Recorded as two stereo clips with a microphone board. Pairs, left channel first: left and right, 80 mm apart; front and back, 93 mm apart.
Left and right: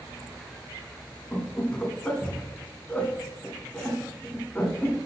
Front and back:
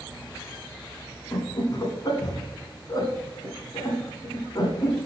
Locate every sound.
1.3 s laughter: 25° left, 2 m